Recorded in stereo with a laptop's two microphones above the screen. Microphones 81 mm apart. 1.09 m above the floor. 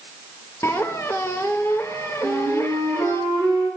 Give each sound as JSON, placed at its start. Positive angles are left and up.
{"t": 0.6, "sound": "a squeak", "side_deg": 35, "distance_m": 0.9}
{"t": 2.2, "sound": "a flute", "side_deg": 30, "distance_m": 5.0}